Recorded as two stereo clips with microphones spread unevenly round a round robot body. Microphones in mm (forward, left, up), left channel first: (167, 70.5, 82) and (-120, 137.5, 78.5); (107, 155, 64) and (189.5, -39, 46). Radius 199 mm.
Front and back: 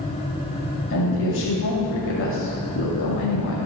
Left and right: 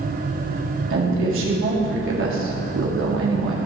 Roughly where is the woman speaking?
Ahead right.